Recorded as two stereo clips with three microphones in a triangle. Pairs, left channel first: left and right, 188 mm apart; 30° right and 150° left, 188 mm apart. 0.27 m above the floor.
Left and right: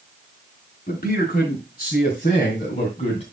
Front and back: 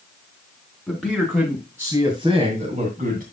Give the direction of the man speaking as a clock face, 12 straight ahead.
10 o'clock.